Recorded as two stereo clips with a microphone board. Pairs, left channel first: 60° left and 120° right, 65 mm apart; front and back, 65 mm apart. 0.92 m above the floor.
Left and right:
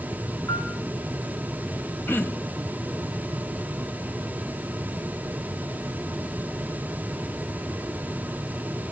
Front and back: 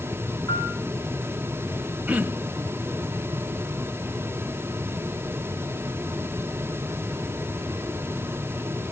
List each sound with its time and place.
0.5 s a piano: 15° left, 5 m
2.1 s throat clearing: 115° left, 0.9 m